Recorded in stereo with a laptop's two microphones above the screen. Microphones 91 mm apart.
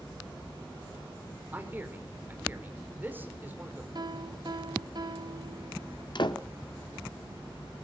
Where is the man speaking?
20° right (ahead or behind), 3 m.